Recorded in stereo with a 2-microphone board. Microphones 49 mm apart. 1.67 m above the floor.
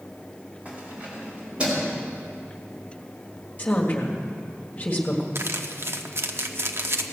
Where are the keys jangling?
25° right (ahead or behind), 4 m; by 1.9 s 20° right (ahead or behind), 4.5 m.